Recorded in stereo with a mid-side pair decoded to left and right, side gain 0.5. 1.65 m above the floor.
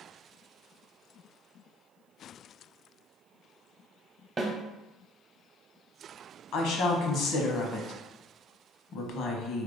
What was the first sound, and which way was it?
A snare drum, 30° right.